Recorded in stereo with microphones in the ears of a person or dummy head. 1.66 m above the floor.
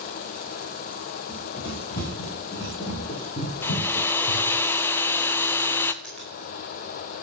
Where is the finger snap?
5° left (ahead or behind), 5 m.